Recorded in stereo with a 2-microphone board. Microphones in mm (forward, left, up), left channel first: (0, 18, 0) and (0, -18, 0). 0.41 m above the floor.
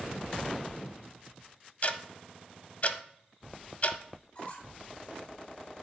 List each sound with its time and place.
1.8 s ticking: 45° left (ahead or behind), 0.7 m
4.3 s a squeak: 35° left (ahead or behind), 2 m